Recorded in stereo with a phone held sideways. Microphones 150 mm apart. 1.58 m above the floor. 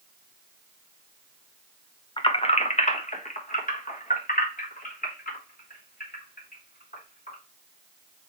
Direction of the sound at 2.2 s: 35° left (ahead or behind).